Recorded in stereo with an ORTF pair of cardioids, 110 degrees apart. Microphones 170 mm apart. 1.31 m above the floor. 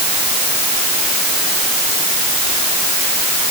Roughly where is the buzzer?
No buzzer in this recording.